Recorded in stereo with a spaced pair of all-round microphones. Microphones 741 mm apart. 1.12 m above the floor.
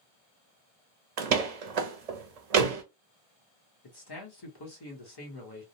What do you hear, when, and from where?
1.2 s a door slam: 55° right (ahead or behind), 0.6 m
3.8 s a man speaking: 30° left (ahead or behind), 1.1 m